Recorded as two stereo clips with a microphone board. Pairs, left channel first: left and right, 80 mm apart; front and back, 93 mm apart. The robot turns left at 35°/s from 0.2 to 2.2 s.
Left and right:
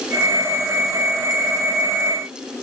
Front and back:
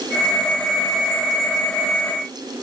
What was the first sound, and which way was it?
Only background noise.